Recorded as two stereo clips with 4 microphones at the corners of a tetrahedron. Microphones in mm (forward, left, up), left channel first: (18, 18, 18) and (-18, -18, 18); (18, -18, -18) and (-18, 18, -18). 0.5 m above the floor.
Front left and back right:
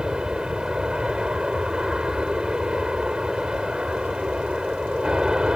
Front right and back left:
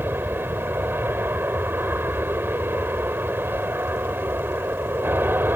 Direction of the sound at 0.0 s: 155° left.